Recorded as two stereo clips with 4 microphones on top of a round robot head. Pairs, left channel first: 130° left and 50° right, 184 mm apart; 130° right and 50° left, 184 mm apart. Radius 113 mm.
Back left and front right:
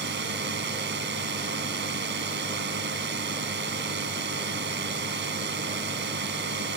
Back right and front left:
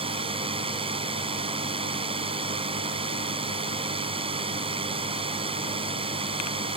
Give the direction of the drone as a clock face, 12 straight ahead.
1 o'clock.